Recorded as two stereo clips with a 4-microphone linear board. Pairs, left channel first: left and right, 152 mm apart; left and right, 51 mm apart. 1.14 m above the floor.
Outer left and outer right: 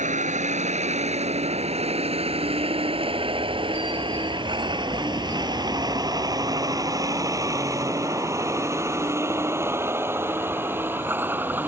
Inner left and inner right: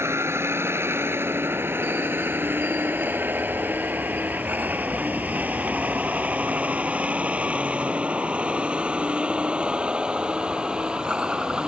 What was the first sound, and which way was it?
A vehicle, 55° right (ahead or behind).